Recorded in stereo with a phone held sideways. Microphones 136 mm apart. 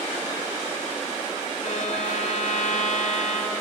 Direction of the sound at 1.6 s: 65° left (ahead or behind).